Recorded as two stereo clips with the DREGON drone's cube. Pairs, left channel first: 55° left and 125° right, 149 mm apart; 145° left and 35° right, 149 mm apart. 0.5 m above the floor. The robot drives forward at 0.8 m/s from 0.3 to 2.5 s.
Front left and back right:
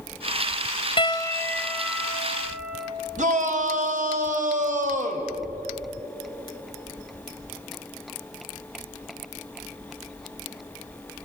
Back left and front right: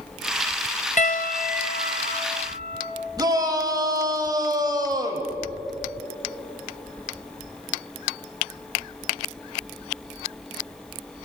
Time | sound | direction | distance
1.0 | a piano | 110° left | 0.8 m
3.2 | a shout | 95° right | 2.5 m